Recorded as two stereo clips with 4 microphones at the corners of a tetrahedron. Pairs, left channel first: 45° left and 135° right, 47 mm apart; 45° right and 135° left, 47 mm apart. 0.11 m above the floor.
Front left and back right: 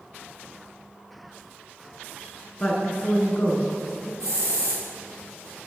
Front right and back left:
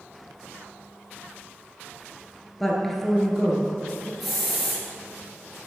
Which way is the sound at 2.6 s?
30° left.